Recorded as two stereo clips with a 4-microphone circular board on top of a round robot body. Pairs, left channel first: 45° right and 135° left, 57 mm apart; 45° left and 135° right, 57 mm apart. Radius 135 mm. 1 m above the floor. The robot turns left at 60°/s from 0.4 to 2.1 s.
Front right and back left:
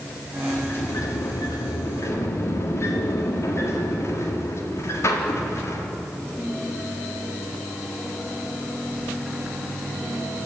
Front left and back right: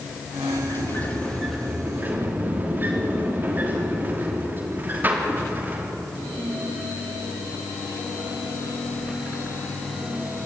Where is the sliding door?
15° left, 3 m; by 5.9 s 80° right, 3 m.